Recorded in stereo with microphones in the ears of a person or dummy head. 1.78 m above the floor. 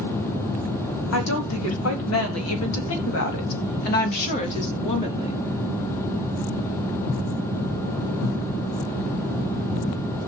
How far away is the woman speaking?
About 4 m.